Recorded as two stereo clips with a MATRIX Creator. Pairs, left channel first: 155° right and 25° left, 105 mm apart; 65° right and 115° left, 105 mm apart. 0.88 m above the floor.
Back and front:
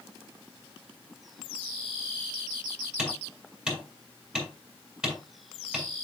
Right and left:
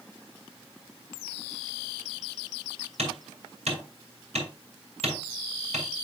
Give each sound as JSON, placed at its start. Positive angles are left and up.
{"t": 3.0, "sound": "hammering", "azimuth_deg": 105, "distance_m": 5.5}